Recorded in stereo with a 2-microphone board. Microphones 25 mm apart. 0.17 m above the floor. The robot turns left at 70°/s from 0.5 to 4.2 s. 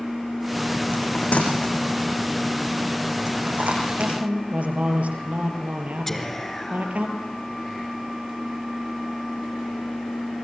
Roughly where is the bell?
Left.